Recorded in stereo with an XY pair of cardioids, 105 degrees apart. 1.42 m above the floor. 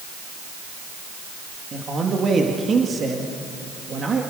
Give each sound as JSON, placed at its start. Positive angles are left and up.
{"t": 1.7, "sound": "a man speaking", "azimuth_deg": -45, "distance_m": 2.5}